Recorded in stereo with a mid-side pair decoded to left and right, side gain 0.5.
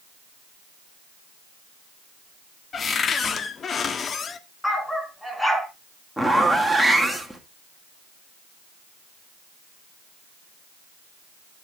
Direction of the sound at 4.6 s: 10° left.